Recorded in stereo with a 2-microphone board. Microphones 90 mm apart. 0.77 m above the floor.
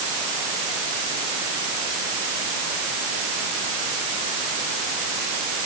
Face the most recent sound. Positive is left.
No sound to turn to.